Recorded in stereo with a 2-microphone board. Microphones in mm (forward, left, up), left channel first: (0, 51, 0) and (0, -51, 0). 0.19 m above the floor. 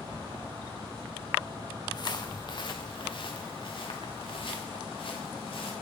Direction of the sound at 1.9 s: 45° left (ahead or behind).